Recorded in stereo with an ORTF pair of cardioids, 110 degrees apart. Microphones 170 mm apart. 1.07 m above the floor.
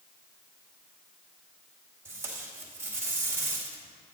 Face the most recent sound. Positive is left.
turn(degrees=-15)